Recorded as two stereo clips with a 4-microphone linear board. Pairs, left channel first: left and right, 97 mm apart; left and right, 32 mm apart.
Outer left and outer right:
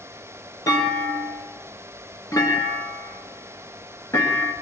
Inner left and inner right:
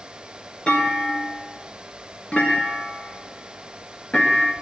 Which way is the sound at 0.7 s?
30° left (ahead or behind).